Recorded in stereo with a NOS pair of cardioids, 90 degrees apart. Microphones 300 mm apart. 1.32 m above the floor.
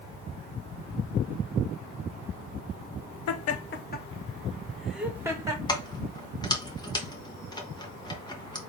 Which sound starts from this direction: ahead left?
Laughter, at 3.3 s.